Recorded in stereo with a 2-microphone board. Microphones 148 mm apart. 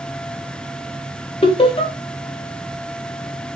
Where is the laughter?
40° left (ahead or behind), 1.0 m.